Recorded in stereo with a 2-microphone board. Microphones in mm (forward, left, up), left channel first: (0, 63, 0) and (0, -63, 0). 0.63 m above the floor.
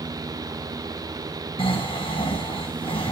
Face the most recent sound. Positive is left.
turn(degrees=45)  # may be behind; listen again after turning